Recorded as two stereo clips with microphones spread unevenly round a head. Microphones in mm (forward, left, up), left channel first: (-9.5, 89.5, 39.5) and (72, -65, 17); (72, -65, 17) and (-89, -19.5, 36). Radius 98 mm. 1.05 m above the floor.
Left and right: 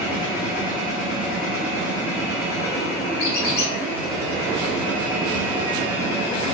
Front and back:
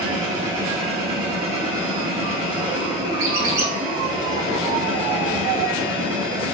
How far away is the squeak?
About 0.9 m.